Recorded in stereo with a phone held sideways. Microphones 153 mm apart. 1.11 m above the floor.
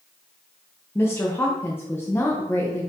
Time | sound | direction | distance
0.9 | a woman speaking | 15° left (ahead or behind) | 0.9 m